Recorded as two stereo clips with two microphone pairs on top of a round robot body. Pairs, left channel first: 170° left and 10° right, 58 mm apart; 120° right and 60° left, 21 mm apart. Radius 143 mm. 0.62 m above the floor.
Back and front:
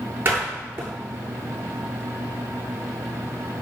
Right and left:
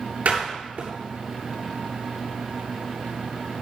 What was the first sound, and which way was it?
A door slam, 45° left.